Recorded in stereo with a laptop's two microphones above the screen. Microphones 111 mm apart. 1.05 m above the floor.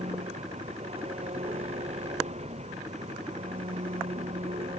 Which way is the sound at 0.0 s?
80° right.